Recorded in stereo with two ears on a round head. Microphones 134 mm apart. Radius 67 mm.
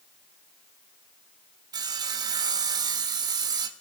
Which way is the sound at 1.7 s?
25° right (ahead or behind).